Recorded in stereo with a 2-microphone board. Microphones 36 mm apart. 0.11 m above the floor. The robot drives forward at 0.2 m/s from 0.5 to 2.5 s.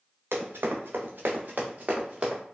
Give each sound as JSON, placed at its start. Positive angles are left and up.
{"t": 0.3, "sound": "running footsteps", "side_deg": -85, "distance_m": 1.3}